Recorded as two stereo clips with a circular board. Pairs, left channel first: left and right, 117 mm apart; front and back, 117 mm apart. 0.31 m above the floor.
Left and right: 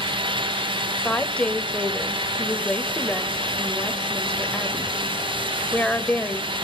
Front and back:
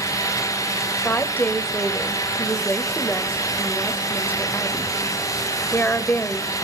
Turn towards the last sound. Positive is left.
turn(degrees=30)